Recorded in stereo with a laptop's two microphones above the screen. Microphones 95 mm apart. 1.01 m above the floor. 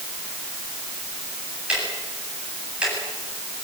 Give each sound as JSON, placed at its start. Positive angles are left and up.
{"t": 1.7, "sound": "ticking", "side_deg": -10, "distance_m": 8.5}